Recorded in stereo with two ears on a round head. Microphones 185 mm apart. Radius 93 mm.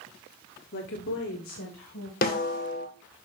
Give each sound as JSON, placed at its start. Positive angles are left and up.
{"t": 0.7, "sound": "a woman speaking", "side_deg": 55, "distance_m": 1.1}
{"t": 2.2, "sound": "a snare drum", "side_deg": 45, "distance_m": 1.8}